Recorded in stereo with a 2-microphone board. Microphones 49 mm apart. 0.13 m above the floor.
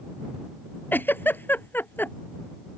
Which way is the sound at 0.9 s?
50° left (ahead or behind).